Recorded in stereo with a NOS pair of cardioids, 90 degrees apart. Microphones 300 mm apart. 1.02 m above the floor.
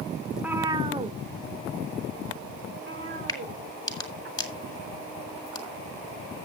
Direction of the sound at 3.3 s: 10° left.